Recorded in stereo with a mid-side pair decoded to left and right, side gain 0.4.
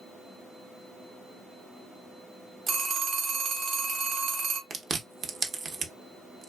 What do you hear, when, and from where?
2.7 s a phone ringing: 60° right, 1.0 m
4.7 s chewing: 50° right, 0.7 m